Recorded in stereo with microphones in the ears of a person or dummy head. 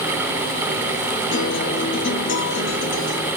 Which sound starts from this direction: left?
A guitar, at 1.3 s.